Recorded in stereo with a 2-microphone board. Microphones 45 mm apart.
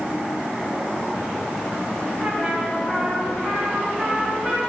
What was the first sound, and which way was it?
A trumpet, 10° right (ahead or behind).